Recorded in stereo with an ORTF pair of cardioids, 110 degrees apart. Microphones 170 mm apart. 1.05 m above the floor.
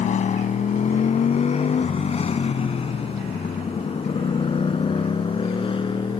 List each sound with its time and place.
0.0 s a motorcycle: 45° left; by 6.2 s 30° left